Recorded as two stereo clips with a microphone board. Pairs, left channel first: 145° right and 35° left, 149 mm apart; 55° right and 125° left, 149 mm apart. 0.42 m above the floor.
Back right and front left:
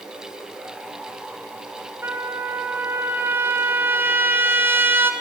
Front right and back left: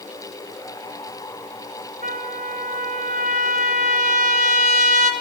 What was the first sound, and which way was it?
A trumpet, 110° left.